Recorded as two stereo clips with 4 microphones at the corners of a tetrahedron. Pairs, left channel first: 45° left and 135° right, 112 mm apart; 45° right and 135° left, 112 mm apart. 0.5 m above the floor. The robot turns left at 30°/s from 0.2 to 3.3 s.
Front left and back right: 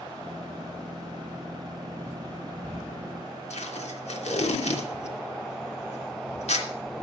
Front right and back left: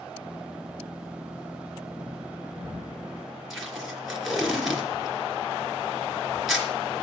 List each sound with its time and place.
3.5 s tape being pulled: 45° left, 3 m